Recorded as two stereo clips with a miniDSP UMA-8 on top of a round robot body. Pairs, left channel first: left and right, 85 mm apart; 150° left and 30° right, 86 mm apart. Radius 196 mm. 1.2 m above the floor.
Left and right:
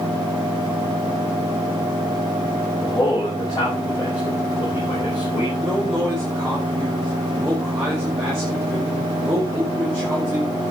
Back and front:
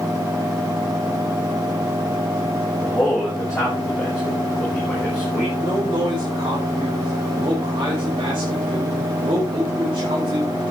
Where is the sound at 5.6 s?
10° right, 6 m.